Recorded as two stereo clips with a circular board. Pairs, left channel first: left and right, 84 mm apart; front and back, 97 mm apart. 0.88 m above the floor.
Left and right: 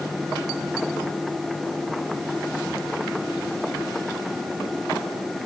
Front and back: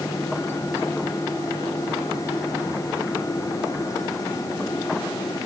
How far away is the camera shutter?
No camera shutter in this recording.